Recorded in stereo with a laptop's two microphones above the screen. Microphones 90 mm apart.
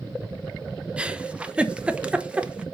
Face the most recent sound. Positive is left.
turn(degrees=-10)  # may be behind; listen again after turning